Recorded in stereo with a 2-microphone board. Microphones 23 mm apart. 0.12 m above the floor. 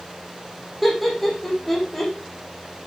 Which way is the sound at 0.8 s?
Centre (ahead or behind).